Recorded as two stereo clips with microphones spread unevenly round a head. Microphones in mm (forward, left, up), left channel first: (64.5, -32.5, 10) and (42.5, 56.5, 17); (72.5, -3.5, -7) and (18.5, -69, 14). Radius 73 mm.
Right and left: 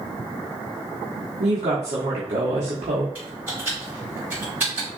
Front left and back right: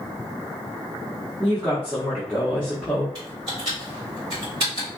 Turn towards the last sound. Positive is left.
turn(degrees=180)